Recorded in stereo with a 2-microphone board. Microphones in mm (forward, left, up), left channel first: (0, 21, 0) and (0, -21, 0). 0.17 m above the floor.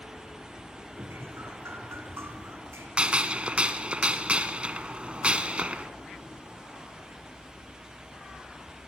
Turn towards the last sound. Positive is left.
turn(degrees=-30)  # may be behind; listen again after turning